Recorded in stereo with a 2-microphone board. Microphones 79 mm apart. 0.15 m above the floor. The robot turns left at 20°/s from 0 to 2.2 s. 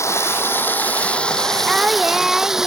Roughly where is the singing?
Centre.